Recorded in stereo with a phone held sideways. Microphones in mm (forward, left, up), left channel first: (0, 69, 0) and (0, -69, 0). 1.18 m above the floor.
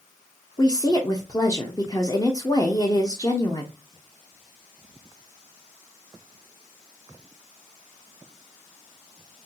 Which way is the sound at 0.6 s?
25° left (ahead or behind).